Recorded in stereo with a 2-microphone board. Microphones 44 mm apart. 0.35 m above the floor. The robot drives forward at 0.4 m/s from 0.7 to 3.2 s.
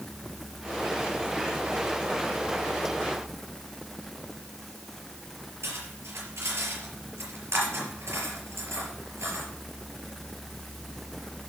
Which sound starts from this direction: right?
Cutlery clinking, at 5.6 s.